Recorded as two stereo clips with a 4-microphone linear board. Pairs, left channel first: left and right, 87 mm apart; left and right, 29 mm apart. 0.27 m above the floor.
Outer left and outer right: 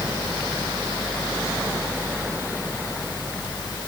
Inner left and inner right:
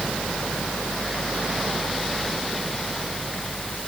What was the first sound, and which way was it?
Only background noise.